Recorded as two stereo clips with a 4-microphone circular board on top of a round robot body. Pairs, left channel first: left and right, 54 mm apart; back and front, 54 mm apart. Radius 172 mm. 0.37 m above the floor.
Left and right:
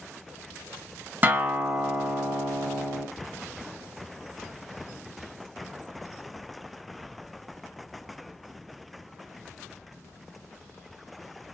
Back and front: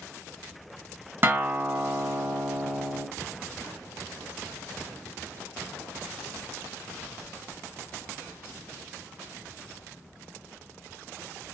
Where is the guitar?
45° right, 1.0 m.